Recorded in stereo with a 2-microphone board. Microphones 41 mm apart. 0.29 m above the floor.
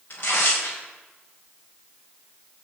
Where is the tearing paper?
55° left (ahead or behind), 8.5 m.